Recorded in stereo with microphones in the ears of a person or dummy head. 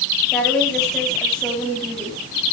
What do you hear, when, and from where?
0.3 s a woman speaking: centre (ahead or behind), 9 m